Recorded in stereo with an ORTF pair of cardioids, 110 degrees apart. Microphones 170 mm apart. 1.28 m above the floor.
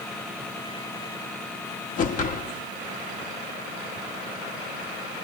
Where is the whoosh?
50° left, 2 m.